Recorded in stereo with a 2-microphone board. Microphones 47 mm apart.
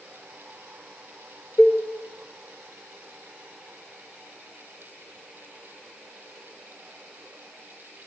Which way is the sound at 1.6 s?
20° left (ahead or behind).